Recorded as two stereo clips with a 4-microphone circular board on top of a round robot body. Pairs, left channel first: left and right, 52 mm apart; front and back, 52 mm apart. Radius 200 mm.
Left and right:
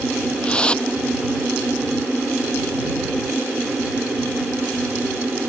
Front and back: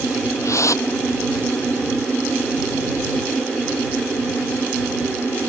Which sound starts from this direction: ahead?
A whoosh, at 0.4 s.